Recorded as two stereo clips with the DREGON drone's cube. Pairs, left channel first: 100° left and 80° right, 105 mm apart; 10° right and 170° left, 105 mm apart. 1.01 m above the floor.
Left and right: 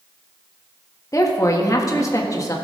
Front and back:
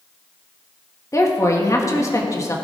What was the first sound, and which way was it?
A woman speaking, 45° left.